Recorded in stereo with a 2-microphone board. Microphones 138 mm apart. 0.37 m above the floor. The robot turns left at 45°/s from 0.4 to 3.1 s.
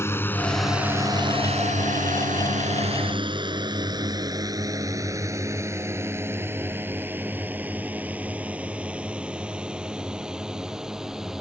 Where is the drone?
20° left (ahead or behind); by 11.4 s 5° right (ahead or behind).